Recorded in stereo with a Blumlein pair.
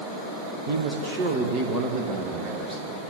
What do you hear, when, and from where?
0.7 s a man speaking: 50° right, 2 m; by 2.9 s 25° right, 3.5 m